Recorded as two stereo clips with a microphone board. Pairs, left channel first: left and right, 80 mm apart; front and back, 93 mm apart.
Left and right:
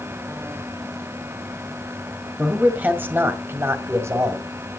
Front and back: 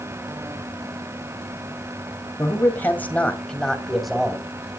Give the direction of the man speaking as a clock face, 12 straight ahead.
1 o'clock.